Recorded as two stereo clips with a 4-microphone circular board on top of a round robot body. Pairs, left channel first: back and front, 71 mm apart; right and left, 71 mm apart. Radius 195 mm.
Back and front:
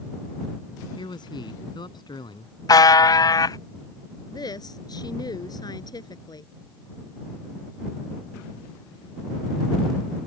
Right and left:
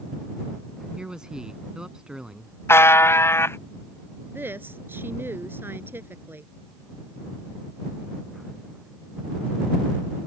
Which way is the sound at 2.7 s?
145° right.